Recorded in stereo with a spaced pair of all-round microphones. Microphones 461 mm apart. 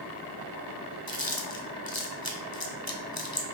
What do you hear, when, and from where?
1.1 s chewing: 50° left (ahead or behind), 1.3 m